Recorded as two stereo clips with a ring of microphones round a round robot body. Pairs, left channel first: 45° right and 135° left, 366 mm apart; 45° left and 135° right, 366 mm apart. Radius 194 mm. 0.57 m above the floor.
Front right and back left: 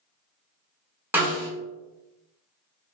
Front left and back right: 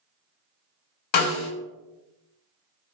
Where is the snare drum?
50° left, 0.7 m.